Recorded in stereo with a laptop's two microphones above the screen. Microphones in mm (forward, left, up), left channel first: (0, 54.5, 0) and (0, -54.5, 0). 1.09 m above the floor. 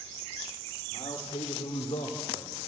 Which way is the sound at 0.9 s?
70° left (ahead or behind).